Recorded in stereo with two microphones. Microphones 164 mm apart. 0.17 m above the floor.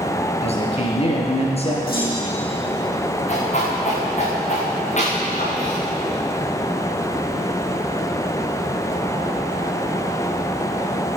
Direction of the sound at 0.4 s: 40° left (ahead or behind).